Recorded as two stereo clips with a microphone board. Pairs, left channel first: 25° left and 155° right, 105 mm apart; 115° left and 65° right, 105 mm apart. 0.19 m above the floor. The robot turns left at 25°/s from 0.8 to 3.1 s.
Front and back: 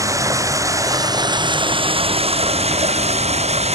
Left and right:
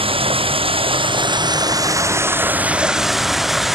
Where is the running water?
100° right; by 3.8 s 155° right.